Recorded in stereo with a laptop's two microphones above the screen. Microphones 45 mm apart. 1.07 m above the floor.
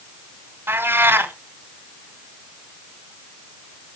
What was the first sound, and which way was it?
A cat meowing, 55° right (ahead or behind).